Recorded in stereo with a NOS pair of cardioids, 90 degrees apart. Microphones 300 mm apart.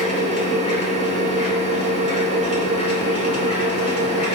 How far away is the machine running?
About 3.5 m.